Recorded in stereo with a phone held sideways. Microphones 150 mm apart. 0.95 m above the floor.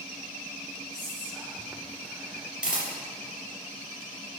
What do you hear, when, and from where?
0.9 s whispering: 10° right (ahead or behind), 0.6 m
2.6 s a camera shutter: 5° right (ahead or behind), 3.5 m